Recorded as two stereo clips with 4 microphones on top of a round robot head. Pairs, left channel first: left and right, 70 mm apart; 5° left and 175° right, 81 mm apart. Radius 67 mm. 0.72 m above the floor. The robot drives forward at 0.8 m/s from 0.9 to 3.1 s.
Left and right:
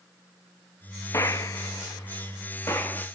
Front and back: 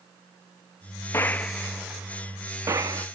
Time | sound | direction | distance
1.1 | a gunshot | 55° left | 1.0 m